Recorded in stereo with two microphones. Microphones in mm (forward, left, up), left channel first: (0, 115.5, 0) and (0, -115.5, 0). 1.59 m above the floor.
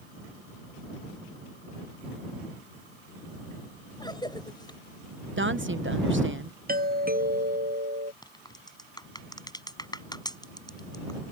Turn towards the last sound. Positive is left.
turn(degrees=20)  # may be behind; listen again after turning